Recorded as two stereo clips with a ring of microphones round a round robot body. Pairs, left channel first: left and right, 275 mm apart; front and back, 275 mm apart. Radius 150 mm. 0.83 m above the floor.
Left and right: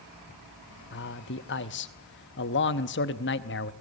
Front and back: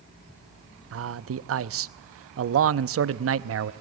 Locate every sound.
0.9 s a man speaking: 140° left, 0.8 m